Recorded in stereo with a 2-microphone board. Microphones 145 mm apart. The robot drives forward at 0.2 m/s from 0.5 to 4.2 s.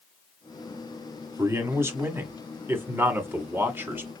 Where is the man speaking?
20° right (ahead or behind), 1.5 m; by 4.1 s 15° right (ahead or behind), 1.9 m.